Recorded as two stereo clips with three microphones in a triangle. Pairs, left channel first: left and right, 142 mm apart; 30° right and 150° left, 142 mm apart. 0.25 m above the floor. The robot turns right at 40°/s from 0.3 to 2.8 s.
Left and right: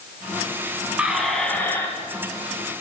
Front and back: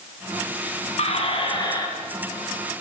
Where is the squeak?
10° right, 1.6 m; by 1.9 s 25° left, 1.6 m.